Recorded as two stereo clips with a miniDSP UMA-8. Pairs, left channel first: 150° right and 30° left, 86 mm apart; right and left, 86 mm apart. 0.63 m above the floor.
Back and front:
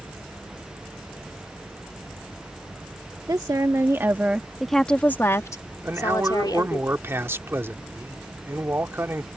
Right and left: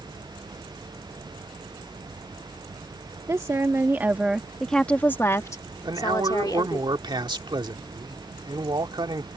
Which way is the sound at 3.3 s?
55° left.